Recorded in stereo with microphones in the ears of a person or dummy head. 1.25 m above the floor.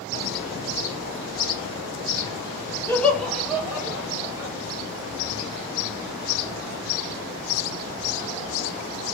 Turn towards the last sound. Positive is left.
turn(degrees=-20)  # may be behind; listen again after turning